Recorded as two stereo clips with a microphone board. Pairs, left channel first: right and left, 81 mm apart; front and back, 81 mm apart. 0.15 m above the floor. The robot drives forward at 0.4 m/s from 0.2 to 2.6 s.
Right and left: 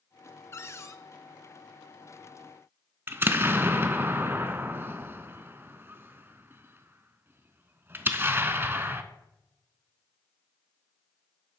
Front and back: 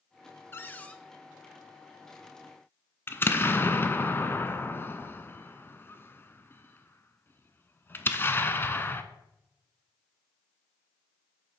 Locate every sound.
0.5 s a cupboard door: 50° right, 0.6 m; by 1.0 s 70° right, 0.5 m
3.1 s an explosion: 45° left, 0.5 m